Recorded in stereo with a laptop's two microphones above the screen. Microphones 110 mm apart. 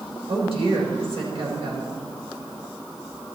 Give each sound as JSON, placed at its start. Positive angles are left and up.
{"t": 0.3, "sound": "a woman speaking", "side_deg": -65, "distance_m": 4.5}